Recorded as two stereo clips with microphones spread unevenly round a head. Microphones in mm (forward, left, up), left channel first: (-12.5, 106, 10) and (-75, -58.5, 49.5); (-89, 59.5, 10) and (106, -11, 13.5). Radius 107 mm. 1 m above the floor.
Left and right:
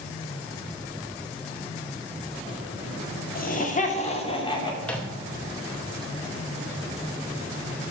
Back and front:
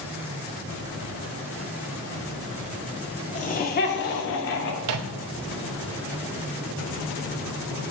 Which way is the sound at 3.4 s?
105° left.